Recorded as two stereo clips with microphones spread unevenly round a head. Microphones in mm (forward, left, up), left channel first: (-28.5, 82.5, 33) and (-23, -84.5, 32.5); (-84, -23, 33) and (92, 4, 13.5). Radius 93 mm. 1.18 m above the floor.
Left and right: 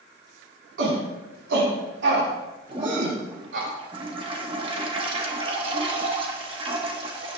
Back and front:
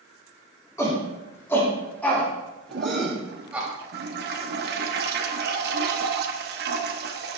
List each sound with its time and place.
0.8 s a shout: 95° right, 4 m; by 3.7 s 70° right, 2 m
2.7 s a toilet flushing: 25° right, 1.1 m